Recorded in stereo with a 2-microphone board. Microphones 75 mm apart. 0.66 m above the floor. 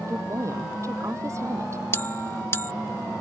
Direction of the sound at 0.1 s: 40° right (ahead or behind).